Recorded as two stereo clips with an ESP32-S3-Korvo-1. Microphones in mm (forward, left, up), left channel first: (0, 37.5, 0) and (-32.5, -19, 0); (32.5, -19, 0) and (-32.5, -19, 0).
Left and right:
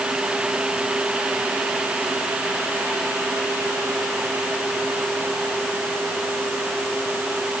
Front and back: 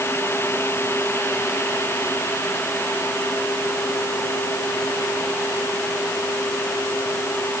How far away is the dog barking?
No dog barking in this recording.